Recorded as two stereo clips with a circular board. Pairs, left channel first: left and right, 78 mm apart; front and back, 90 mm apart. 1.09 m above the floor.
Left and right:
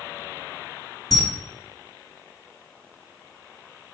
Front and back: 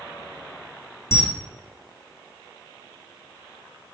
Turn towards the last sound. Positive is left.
turn(degrees=60)